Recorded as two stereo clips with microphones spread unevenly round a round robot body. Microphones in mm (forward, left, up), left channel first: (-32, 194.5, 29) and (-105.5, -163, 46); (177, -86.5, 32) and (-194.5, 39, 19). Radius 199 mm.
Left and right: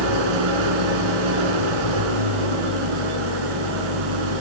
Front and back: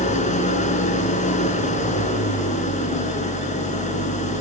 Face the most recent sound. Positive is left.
turn(degrees=-90)